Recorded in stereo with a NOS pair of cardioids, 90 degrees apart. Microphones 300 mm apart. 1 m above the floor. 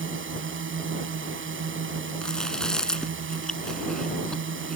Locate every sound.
0.0 s a drone: 40° right
2.2 s chewing: straight ahead